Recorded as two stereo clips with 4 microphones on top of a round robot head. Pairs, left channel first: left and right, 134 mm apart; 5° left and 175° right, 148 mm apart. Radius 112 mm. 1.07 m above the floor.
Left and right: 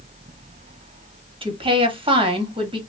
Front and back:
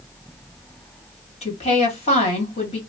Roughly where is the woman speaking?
Ahead right.